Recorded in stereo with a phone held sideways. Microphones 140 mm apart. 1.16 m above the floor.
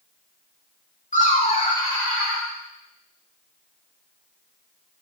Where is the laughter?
60° left (ahead or behind), 0.9 m; by 2.5 s 5° right (ahead or behind), 1.2 m.